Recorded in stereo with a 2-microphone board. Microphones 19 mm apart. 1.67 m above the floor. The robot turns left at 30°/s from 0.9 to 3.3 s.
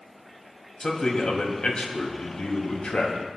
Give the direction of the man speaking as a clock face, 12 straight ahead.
7 o'clock.